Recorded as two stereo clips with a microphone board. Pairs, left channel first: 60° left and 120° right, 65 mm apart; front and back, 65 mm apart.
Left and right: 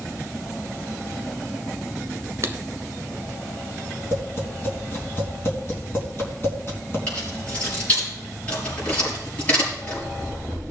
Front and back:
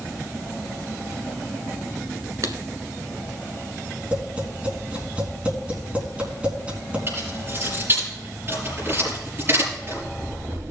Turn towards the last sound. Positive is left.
turn(degrees=125)